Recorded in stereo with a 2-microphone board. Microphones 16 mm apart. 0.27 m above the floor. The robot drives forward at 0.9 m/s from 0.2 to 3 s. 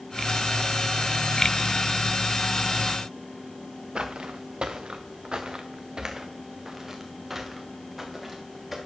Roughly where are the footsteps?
Right.